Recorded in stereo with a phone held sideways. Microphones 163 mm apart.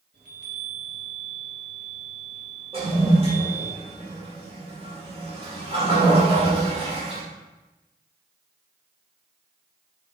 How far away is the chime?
About 2 m.